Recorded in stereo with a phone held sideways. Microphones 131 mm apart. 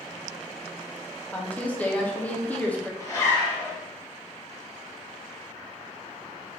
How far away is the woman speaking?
About 0.5 m.